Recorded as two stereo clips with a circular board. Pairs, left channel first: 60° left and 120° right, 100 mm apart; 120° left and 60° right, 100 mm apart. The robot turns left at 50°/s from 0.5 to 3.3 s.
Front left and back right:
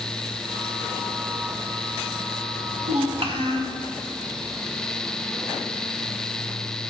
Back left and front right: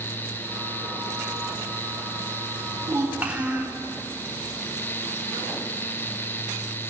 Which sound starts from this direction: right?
A child speaking, at 2.8 s.